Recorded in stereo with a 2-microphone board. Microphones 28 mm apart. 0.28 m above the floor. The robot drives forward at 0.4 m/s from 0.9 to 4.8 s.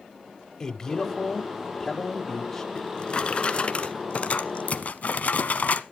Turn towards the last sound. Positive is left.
turn(degrees=60)  # may be behind; listen again after turning